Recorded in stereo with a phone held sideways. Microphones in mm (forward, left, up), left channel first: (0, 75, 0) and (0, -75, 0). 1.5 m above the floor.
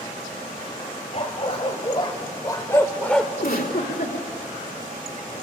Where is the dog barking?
45° left (ahead or behind), 3 m; by 3.3 s centre (ahead or behind), 1.8 m.